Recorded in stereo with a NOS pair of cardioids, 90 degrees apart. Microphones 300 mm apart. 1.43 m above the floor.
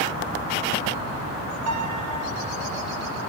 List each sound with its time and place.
1.7 s a piano: 65° right, 5.5 m